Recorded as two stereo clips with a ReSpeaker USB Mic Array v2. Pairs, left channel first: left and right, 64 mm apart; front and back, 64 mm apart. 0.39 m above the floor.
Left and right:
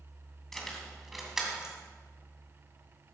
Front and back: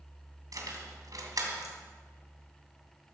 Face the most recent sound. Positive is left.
turn(degrees=-170)